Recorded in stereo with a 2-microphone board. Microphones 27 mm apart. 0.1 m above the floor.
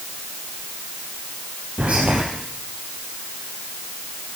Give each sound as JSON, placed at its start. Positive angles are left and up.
{"t": 1.8, "sound": "whispering", "side_deg": -55, "distance_m": 2.0}